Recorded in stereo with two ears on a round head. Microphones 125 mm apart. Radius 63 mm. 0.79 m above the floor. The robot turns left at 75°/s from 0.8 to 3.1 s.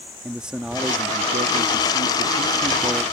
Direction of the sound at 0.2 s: 5° right.